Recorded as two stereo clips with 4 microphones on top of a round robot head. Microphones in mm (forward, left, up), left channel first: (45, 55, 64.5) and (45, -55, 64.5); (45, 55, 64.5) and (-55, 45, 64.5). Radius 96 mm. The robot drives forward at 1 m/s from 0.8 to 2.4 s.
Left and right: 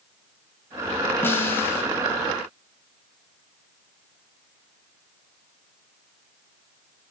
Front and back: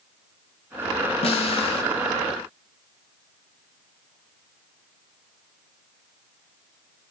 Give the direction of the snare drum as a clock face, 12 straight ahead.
11 o'clock.